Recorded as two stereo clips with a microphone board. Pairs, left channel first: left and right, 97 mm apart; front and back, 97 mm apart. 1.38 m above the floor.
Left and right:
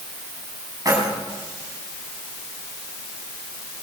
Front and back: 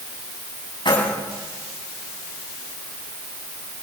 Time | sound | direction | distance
0.8 | keys jangling | 35° right | 8 m